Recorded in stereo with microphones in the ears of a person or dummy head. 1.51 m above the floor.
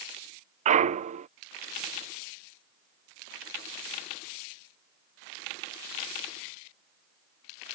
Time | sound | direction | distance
0.7 | a clunk | 40° right (ahead or behind) | ?